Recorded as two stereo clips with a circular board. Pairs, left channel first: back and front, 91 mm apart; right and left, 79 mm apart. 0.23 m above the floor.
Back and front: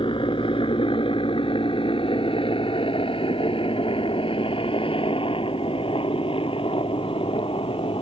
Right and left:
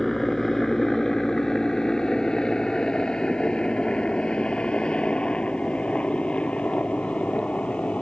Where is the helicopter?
175° right; by 8.0 s 165° right.